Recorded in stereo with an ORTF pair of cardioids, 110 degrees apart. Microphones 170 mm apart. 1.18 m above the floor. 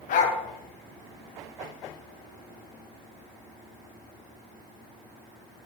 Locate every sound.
0.1 s a dog barking: 60° left, 2.5 m